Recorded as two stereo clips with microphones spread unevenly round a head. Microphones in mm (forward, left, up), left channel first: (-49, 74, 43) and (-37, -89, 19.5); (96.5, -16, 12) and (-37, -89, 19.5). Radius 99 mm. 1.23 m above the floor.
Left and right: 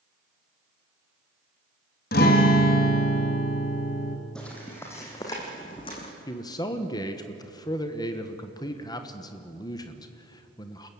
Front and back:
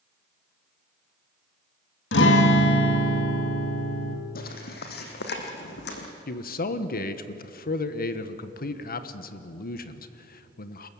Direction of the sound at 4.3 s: 15° left.